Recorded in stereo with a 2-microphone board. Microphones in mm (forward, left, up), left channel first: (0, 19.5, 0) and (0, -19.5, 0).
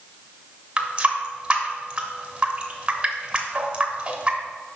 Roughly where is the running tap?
Right.